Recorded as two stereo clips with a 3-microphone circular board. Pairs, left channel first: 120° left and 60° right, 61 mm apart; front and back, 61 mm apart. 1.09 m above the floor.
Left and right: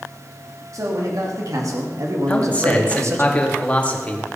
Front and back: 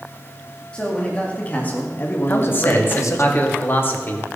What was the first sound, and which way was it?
A man speaking, 70° right.